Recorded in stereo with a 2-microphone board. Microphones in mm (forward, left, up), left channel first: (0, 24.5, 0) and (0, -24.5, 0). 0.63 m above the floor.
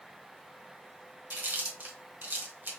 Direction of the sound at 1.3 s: 40° right (ahead or behind).